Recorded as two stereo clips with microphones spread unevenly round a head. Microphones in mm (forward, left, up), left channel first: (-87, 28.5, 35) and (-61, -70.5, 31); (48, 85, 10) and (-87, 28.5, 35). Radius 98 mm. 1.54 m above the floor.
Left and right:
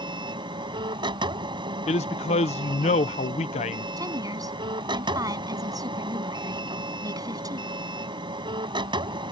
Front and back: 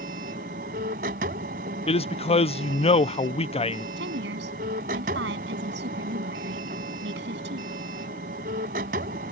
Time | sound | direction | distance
0.0 | a machine running | 115° right | ?
1.9 | a man speaking | 70° left | ?
4.0 | a woman speaking | 130° right | ?